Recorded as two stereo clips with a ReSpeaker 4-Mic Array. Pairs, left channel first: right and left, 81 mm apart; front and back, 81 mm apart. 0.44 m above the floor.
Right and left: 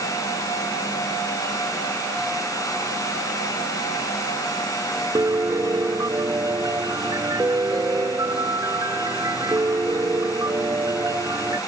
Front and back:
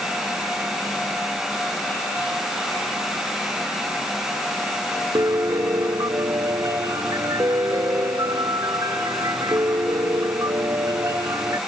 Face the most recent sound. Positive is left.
turn(degrees=135)